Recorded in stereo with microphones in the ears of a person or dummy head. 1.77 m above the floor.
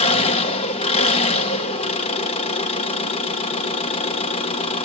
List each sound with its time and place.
0.0 s an engine running: 30° left (ahead or behind), 1.3 m